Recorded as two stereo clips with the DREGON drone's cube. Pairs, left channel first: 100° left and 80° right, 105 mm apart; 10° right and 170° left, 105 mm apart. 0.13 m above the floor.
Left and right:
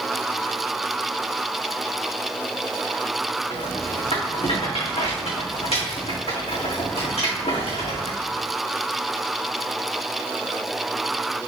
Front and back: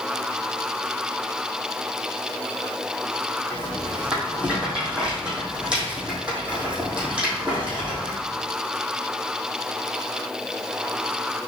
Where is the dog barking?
I don't hear a dog barking.